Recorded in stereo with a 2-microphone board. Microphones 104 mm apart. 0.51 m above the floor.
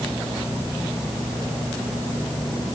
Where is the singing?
I don't hear singing.